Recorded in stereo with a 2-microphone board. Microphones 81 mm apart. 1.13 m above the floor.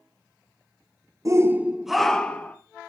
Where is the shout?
40° right (ahead or behind), 0.8 m; by 2.6 s 25° left (ahead or behind), 1.3 m.